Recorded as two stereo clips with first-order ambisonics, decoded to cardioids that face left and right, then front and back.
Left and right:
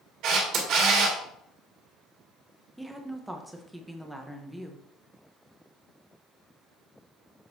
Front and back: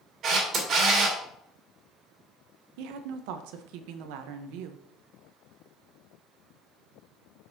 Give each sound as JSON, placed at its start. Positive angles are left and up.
{"t": 0.2, "sound": "a camera shutter", "azimuth_deg": -125, "distance_m": 2.5}
{"t": 2.8, "sound": "a woman speaking", "azimuth_deg": -175, "distance_m": 0.8}